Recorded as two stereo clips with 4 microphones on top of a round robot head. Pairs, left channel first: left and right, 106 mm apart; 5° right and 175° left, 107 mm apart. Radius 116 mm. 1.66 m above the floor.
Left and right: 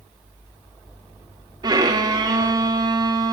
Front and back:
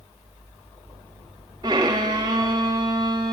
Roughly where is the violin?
Behind right.